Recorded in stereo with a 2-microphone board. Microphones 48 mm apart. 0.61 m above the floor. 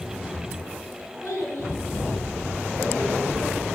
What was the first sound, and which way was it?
A child speaking, 80° left.